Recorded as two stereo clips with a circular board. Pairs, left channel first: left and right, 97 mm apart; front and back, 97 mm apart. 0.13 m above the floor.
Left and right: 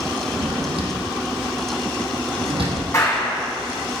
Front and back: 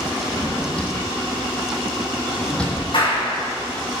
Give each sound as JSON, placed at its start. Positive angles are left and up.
{"t": 0.3, "sound": "a drawer", "azimuth_deg": -80, "distance_m": 2.5}
{"t": 2.9, "sound": "a clap", "azimuth_deg": 35, "distance_m": 5.0}